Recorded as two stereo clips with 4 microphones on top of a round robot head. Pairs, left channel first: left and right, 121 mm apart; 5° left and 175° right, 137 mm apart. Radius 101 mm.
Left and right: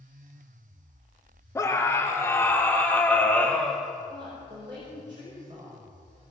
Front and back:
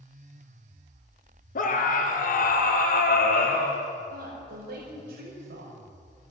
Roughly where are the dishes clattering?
No dishes clattering in this recording.